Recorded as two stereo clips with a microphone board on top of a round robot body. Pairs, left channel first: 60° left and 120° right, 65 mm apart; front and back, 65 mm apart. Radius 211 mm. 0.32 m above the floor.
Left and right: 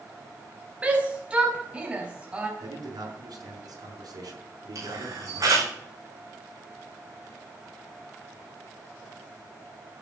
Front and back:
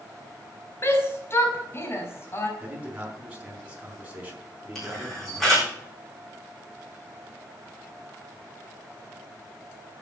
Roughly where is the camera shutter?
Right.